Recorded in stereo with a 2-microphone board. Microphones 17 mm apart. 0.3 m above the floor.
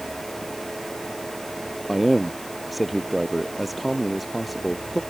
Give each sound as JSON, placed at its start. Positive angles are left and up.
{"t": 1.9, "sound": "a man speaking", "side_deg": 5}